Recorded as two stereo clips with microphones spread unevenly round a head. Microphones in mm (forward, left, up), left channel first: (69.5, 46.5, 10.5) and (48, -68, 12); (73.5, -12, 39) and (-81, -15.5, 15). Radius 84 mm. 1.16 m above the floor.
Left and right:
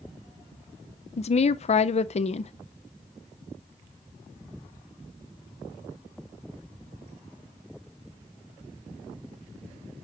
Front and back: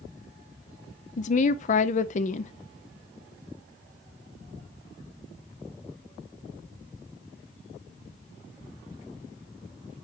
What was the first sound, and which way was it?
A woman speaking, 50° left.